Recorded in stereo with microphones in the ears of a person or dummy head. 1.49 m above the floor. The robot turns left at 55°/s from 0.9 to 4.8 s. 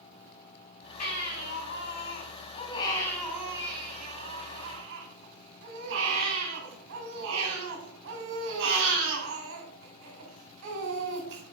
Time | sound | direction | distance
1.0 | a baby crying | 130° left | 3 m